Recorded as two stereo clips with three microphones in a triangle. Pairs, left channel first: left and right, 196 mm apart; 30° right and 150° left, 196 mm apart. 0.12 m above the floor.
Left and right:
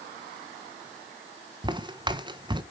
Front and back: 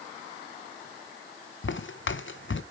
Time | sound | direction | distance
1.6 | footsteps | 20° right | 1.0 m